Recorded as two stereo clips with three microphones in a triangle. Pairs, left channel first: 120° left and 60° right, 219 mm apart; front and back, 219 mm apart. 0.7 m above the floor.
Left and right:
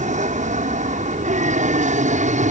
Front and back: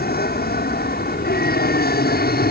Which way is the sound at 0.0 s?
20° right.